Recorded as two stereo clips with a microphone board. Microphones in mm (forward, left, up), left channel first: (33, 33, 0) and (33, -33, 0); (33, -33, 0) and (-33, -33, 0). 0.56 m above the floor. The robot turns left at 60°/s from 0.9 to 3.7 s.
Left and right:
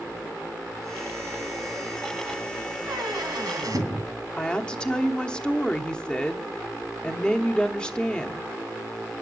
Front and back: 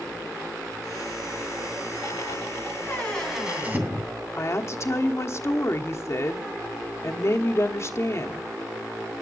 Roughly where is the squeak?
Ahead right.